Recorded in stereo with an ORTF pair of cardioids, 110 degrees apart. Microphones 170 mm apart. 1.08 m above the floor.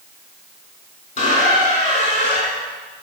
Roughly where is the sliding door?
No sliding door in this recording.